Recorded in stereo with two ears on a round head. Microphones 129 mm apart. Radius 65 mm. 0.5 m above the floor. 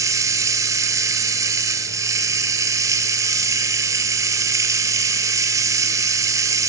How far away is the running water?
About 0.8 m.